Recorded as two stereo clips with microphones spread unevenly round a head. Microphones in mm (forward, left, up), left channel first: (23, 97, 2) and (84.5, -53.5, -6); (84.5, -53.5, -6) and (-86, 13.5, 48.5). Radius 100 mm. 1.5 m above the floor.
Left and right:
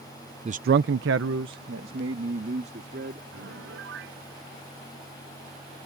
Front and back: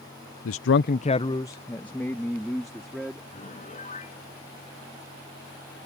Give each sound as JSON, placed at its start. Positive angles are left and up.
{"t": 0.5, "sound": "a man speaking", "azimuth_deg": -15}
{"t": 3.3, "sound": "a piano", "azimuth_deg": -75}